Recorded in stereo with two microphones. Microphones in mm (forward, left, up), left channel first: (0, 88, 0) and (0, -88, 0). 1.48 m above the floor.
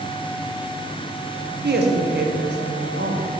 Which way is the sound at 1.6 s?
70° right (ahead or behind).